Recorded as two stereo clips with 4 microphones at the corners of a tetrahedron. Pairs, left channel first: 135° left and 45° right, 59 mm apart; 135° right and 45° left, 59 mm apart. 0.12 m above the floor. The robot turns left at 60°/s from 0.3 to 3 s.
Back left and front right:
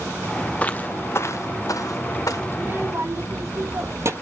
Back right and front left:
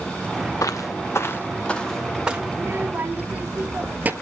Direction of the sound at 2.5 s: 15° left.